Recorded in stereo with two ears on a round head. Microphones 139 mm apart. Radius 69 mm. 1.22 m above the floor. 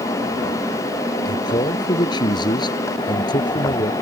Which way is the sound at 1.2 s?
30° left (ahead or behind).